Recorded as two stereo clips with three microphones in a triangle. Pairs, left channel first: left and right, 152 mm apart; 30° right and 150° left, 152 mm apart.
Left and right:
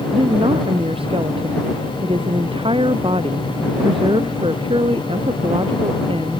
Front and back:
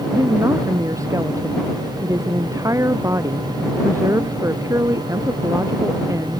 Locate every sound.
0.1 s a woman speaking: 140° right